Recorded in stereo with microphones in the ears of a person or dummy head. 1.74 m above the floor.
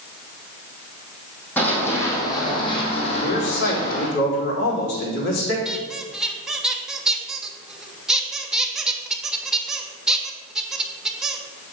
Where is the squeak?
5° right (ahead or behind), 1.1 m.